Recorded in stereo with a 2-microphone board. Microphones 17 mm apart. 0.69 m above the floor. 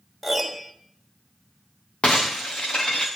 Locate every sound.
0.2 s a piano: 5° left (ahead or behind), 2 m
2.0 s breaking glass: 80° left, 3.5 m